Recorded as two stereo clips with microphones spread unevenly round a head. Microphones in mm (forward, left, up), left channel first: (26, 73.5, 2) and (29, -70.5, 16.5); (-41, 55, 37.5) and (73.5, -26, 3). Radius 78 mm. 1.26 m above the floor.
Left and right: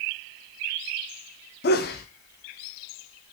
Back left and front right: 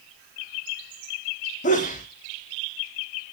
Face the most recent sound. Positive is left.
turn(degrees=100)